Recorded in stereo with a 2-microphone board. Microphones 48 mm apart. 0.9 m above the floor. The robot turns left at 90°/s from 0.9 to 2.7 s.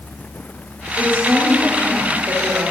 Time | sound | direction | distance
1.0 | a woman speaking | 60° left | 3.5 m